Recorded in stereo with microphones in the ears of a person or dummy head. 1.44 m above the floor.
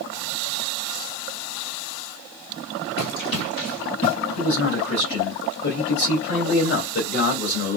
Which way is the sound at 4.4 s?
50° left (ahead or behind).